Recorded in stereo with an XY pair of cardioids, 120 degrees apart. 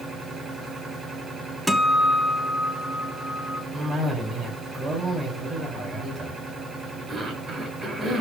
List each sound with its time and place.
0.0 s a machine running: 30° right, 9 m
1.7 s a guitar: 10° right, 1.5 m
3.7 s a cough: 45° right, 9 m